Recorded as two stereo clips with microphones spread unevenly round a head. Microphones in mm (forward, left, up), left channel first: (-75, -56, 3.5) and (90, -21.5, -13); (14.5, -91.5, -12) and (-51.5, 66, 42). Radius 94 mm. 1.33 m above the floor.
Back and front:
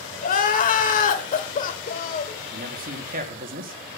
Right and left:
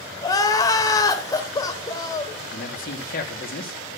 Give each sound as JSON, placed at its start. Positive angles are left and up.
{"t": 0.2, "sound": "crying", "azimuth_deg": -145, "distance_m": 1.6}
{"t": 2.5, "sound": "a man speaking", "azimuth_deg": -25, "distance_m": 2.5}